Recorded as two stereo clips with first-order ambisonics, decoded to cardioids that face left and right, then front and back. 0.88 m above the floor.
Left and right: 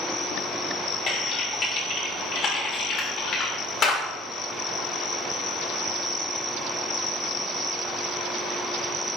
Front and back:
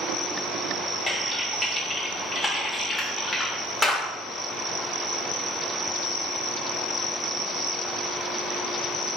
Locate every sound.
1.1 s typing on a keyboard: 75° left, 0.9 m